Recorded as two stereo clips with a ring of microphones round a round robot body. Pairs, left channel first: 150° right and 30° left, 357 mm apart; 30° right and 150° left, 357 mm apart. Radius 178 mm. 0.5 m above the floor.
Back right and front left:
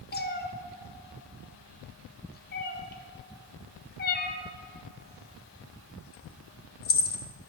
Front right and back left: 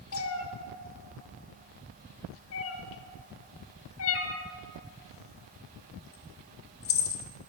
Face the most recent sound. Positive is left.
turn(degrees=-85)